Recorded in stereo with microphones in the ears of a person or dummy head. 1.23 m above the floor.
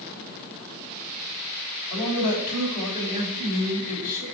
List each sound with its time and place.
1.9 s a man speaking: 50° left (ahead or behind), 5 m